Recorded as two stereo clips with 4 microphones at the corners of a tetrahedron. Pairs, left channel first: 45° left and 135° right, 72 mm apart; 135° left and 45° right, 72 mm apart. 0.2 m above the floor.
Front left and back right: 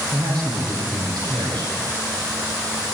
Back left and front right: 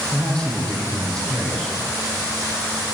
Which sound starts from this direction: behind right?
A man speaking, at 0.1 s.